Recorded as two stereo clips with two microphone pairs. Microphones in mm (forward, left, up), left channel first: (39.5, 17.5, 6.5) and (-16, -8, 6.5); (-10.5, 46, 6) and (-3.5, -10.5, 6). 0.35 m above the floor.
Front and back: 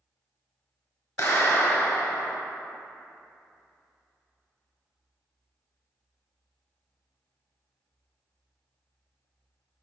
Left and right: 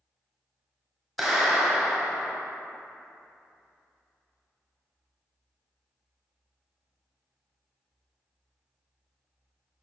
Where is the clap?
5° left, 1.3 m.